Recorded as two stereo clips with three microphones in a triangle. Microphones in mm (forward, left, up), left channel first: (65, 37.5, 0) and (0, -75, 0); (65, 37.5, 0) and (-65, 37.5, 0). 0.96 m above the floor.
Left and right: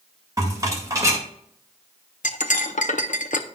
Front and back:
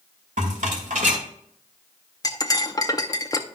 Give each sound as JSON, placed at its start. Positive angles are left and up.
{"t": 0.4, "sound": "a rattle", "azimuth_deg": 180, "distance_m": 2.0}
{"t": 2.2, "sound": "cutlery clinking", "azimuth_deg": 65, "distance_m": 0.6}